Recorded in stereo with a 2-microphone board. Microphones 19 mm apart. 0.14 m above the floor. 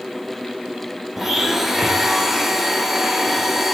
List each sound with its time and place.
1.2 s a blender: 15° right (ahead or behind), 1.3 m